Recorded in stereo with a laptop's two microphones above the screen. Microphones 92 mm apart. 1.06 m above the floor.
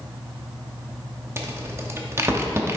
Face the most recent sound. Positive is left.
turn(degrees=-30)  # may be behind; listen again after turning